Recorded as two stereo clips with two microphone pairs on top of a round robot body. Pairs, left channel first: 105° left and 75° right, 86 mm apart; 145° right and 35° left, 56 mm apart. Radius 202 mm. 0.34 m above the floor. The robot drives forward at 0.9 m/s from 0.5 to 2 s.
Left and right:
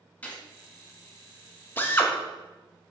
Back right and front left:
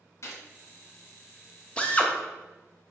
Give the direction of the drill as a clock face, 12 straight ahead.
7 o'clock.